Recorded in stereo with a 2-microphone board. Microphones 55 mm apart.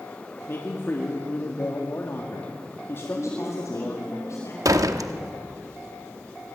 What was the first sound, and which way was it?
A man speaking, 45° left (ahead or behind).